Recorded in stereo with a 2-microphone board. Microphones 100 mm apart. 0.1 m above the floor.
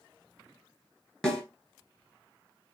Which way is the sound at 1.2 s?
5° left (ahead or behind).